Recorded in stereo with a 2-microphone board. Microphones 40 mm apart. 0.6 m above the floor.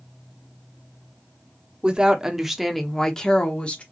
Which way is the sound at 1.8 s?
20° right (ahead or behind).